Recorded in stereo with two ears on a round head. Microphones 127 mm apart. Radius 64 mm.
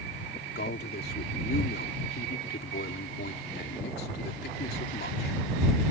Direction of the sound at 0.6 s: 75° left (ahead or behind).